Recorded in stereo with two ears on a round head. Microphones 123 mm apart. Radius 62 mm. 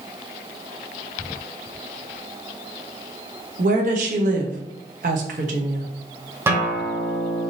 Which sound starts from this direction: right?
A woman speaking, at 3.6 s.